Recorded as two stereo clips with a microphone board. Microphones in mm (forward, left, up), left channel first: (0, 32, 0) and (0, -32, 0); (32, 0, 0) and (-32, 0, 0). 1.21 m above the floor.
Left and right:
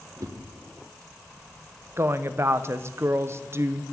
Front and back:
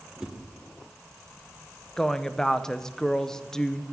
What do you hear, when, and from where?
0.2 s a whoosh: 100° right, 1.3 m
2.0 s a woman speaking: 75° right, 0.6 m